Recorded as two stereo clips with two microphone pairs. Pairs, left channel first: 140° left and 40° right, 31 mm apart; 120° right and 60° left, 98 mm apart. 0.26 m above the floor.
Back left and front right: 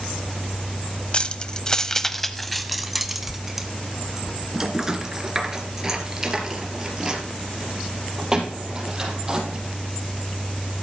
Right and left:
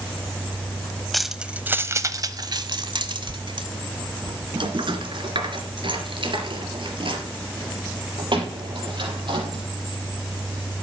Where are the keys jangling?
155° left, 0.8 m; by 9.6 s 25° left, 5 m.